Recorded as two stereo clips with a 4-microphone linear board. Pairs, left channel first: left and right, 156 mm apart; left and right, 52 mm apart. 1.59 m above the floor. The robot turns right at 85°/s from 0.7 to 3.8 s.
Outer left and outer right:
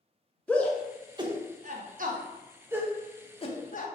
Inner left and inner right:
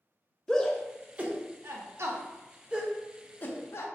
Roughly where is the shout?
Centre.